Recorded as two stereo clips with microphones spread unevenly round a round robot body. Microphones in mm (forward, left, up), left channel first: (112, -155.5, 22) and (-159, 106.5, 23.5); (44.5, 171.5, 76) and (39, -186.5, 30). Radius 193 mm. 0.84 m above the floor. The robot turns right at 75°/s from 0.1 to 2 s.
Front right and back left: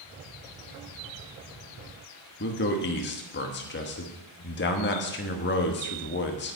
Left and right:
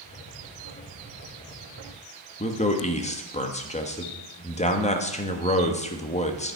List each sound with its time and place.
2.4 s a man speaking: 15° left, 1.3 m